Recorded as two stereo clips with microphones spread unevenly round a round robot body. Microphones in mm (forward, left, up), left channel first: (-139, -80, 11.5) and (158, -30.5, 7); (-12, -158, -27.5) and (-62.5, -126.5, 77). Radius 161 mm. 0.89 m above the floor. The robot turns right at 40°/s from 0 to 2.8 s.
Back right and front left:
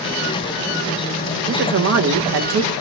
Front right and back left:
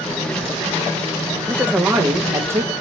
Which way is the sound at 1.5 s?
30° right.